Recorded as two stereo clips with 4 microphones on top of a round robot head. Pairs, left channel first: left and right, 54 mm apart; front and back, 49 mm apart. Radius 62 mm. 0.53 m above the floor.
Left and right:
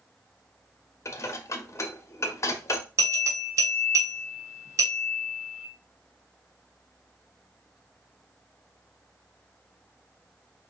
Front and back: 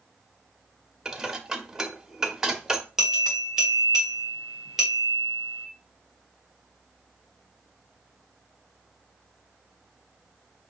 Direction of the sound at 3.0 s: 100° right.